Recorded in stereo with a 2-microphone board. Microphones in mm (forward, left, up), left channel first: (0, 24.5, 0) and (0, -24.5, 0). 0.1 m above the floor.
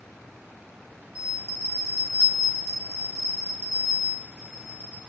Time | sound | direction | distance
1.1 | a bell | 60° left (ahead or behind) | 1.1 m